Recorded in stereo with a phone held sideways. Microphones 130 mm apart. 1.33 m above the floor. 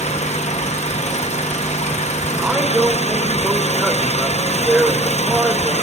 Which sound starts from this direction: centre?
A man speaking, at 2.4 s.